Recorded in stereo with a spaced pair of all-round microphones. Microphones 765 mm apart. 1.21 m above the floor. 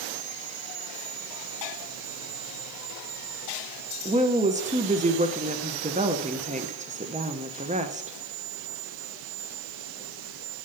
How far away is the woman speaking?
About 0.5 m.